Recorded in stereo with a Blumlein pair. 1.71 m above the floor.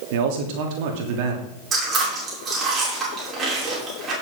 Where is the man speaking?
45° right, 3 m.